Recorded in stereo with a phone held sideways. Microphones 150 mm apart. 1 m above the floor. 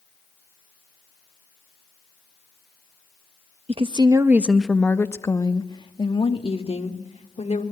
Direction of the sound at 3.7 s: 40° right (ahead or behind).